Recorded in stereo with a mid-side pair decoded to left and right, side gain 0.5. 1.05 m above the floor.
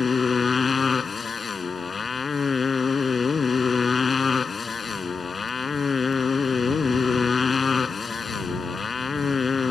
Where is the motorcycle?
35° left.